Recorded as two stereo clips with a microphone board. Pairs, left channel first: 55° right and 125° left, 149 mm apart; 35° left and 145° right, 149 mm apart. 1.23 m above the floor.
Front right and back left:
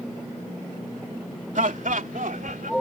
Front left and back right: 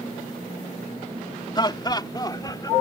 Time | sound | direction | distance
1.6 | laughter | 95° left | ?